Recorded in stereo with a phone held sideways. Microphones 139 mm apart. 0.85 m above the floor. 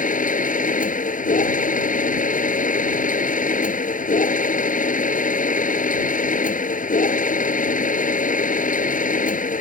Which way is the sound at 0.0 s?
75° left (ahead or behind).